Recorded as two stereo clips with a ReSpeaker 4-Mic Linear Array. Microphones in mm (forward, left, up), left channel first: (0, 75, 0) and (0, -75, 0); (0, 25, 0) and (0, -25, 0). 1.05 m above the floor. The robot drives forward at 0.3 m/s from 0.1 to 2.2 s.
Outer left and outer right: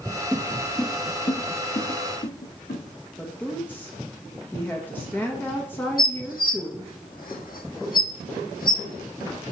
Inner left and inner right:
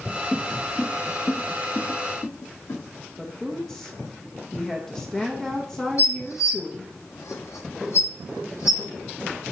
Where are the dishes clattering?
75° left (ahead or behind), 1.0 m.